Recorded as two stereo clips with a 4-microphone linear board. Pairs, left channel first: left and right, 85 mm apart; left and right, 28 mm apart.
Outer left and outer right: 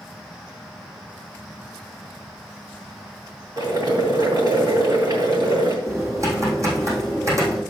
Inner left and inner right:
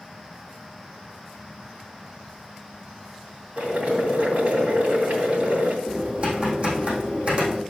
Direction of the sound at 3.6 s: 55° right (ahead or behind).